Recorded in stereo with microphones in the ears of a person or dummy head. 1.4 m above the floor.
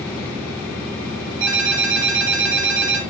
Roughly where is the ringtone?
Right.